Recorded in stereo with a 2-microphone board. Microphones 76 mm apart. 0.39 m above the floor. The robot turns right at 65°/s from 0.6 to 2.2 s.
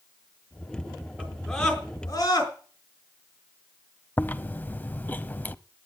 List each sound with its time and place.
1.2 s a scream: 20° right (ahead or behind), 5 m; by 2.5 s 45° left (ahead or behind), 5 m
4.2 s chewing: 25° left (ahead or behind), 0.6 m